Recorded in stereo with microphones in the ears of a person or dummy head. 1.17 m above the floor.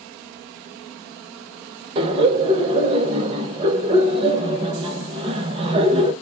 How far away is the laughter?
About 1.0 m.